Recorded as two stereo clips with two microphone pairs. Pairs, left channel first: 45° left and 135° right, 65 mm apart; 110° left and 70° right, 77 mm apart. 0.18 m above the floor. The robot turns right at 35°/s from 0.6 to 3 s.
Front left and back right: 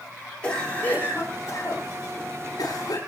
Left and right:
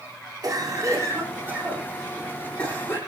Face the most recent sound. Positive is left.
turn(degrees=50)